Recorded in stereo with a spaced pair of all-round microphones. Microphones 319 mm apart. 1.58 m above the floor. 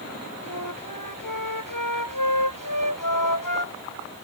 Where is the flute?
85° left.